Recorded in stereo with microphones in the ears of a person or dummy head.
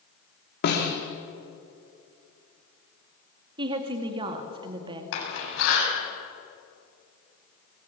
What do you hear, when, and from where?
0.6 s a snare drum: 60° left (ahead or behind), 3.5 m
3.6 s a woman speaking: 25° right (ahead or behind), 2.5 m
5.1 s a door slam: 80° left, 8.5 m